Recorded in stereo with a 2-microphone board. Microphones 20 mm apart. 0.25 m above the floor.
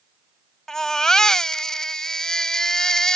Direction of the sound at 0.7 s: 30° left (ahead or behind).